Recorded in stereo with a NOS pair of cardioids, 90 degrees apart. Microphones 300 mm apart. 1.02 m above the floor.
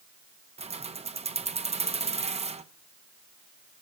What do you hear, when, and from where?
0.6 s keys jangling: 20° right, 0.9 m